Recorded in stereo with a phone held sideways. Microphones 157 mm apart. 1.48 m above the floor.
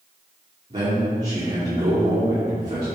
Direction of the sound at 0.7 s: 45° right (ahead or behind).